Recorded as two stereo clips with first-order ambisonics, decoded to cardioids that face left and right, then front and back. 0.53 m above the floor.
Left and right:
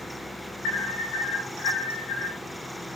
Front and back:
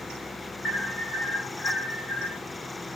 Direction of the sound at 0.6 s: 55° left.